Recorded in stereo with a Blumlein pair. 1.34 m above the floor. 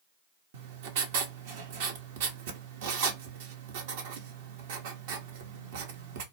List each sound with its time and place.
0.5 s writing: 50° right, 0.8 m